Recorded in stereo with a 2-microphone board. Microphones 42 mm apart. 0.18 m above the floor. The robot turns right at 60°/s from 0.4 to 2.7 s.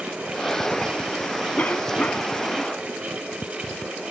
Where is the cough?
80° left; by 2.4 s 130° left.